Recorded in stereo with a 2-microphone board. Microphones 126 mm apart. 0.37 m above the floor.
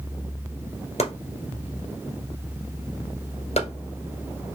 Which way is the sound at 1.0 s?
55° left (ahead or behind).